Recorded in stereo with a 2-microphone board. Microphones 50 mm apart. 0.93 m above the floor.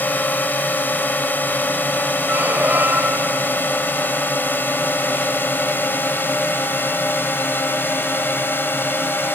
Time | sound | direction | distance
0.0 | a drone | 35° left (ahead or behind) | ?
2.3 | a squeak | 40° right (ahead or behind) | ?